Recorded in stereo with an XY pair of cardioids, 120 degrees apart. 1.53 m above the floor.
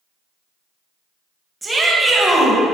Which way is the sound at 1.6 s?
10° right.